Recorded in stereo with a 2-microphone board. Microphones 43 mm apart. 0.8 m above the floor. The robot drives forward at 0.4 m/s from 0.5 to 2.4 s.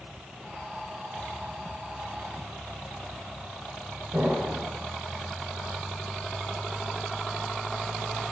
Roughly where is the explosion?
Right.